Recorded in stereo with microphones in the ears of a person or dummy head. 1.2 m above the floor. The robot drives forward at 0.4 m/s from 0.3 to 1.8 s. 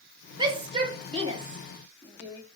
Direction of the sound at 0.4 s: 30° right (ahead or behind).